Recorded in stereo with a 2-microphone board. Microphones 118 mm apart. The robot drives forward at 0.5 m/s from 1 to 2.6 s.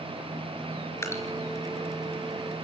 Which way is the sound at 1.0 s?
25° left (ahead or behind).